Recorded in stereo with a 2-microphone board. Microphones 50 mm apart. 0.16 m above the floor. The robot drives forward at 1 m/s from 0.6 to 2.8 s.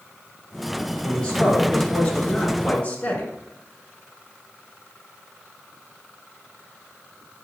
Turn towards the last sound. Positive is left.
turn(degrees=25)  # may be behind; listen again after turning